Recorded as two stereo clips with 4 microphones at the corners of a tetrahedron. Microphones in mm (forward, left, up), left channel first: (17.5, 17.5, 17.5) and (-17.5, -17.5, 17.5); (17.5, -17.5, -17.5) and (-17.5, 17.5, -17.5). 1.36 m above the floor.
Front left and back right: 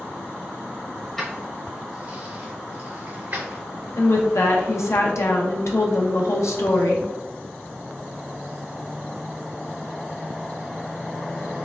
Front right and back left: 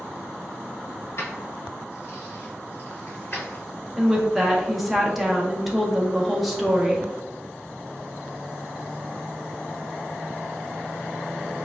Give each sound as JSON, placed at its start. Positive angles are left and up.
{"t": 1.2, "sound": "keys jangling", "azimuth_deg": -35, "distance_m": 1.3}
{"t": 4.0, "sound": "a woman speaking", "azimuth_deg": 50, "distance_m": 0.6}